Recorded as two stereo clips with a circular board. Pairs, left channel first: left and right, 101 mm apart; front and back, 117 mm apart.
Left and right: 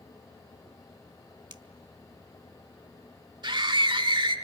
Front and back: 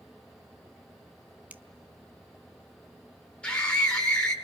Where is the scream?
80° right, 1.6 m.